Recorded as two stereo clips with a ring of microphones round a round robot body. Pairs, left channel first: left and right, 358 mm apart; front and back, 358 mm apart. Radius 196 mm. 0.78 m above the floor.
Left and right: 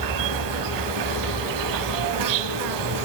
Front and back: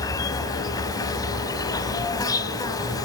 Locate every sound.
0.0 s an insect: 80° right, 0.8 m